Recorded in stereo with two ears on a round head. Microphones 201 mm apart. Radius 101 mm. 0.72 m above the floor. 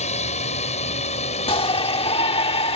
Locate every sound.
0.0 s a drone: 30° left (ahead or behind)
1.5 s a shout: 25° left (ahead or behind)